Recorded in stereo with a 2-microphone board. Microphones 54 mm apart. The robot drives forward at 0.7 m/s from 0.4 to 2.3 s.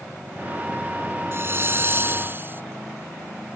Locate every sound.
1.3 s a hiss: 45° right (ahead or behind); by 2.6 s 40° right (ahead or behind)